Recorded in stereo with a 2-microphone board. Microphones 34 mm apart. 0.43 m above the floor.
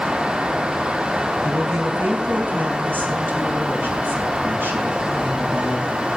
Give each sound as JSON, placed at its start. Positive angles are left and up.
{"t": 1.4, "sound": "a woman speaking", "side_deg": -75, "distance_m": 4.0}